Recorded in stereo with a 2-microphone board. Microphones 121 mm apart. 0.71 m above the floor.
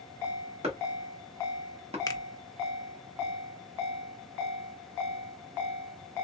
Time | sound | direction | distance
0.6 | chopping | 55° right (ahead or behind) | 1.5 m
2.1 | a finger snap | 30° left (ahead or behind) | 0.5 m